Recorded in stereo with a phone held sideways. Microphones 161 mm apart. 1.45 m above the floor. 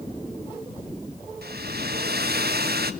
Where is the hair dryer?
75° right (ahead or behind), 1.4 m.